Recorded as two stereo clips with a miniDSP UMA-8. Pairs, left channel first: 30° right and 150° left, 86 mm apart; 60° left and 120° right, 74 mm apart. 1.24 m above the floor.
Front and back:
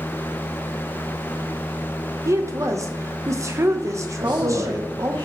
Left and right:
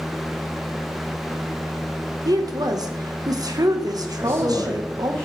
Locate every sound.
2.2 s a woman speaking: 155° right, 0.9 m
4.2 s a man speaking: 125° left, 1.8 m